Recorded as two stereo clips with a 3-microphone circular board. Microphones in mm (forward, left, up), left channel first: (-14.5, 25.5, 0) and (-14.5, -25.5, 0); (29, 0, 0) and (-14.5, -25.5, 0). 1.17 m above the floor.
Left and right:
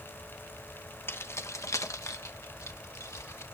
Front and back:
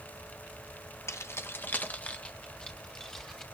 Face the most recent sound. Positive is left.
turn(degrees=110)